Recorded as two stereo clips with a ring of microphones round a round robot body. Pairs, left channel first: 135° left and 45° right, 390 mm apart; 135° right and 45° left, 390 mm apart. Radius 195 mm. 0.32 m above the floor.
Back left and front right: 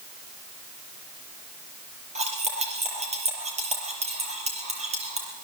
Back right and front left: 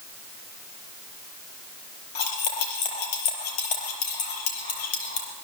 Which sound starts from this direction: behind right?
Cutlery clinking, at 2.1 s.